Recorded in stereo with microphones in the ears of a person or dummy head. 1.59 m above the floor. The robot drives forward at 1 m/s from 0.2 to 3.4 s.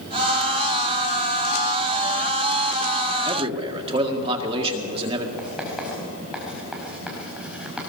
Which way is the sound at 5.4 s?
5° right (ahead or behind).